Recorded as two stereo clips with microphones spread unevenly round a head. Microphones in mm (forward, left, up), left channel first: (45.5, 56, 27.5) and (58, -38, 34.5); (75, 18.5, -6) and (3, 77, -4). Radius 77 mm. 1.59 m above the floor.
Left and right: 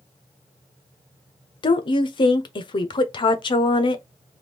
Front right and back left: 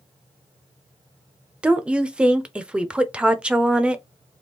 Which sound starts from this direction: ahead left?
A woman speaking, at 1.6 s.